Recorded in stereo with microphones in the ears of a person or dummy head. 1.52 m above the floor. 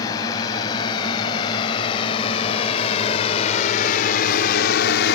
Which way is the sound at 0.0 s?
25° left (ahead or behind).